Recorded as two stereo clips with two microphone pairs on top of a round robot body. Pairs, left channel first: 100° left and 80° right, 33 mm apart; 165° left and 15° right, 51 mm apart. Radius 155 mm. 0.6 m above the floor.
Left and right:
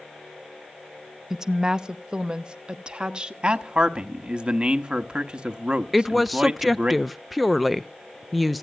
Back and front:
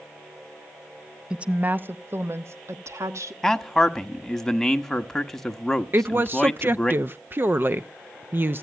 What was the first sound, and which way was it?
A woman speaking, 85° right.